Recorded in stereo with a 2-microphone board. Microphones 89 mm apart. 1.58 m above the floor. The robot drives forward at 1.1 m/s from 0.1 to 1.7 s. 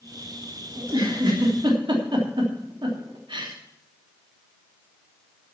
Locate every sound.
0.8 s a giggle: 50° right (ahead or behind), 3.5 m; by 3.5 s 60° right (ahead or behind), 3 m